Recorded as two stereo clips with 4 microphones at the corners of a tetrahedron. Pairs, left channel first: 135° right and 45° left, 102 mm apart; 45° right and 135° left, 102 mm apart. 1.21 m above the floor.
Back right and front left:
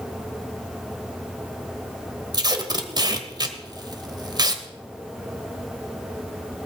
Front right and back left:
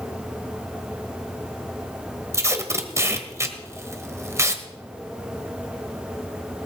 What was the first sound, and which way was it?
Tape being pulled, 80° left.